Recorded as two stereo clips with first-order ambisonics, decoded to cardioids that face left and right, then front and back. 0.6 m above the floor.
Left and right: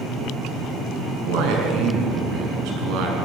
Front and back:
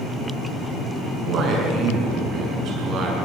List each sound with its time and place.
1.0 s a man speaking: 125° right, 6 m